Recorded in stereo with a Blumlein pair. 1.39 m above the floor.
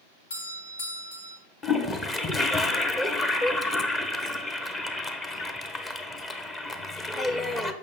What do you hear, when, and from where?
0.3 s a doorbell: 65° left, 3 m
1.6 s a toilet flushing: 15° left, 1.0 m